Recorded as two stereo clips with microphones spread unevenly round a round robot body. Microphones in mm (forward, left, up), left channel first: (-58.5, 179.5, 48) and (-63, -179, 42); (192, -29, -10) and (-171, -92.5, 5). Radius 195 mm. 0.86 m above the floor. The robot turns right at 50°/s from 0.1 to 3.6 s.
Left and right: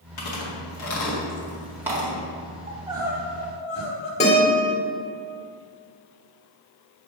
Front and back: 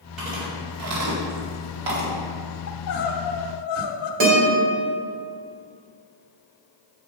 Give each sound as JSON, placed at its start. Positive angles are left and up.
{"t": 0.2, "sound": "chewing", "azimuth_deg": 100, "distance_m": 2.0}
{"t": 2.7, "sound": "crying", "azimuth_deg": -30, "distance_m": 0.9}
{"t": 4.2, "sound": "a guitar", "azimuth_deg": 160, "distance_m": 3.0}